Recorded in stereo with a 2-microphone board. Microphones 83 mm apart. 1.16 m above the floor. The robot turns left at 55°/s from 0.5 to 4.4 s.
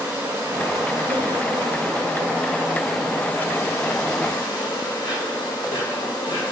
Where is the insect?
45° right, 1.6 m; by 6.5 s 100° left, 1.6 m.